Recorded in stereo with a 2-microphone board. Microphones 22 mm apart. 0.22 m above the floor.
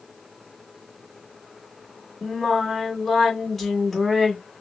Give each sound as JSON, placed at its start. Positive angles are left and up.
{"t": 2.2, "sound": "singing", "side_deg": 20, "distance_m": 2.0}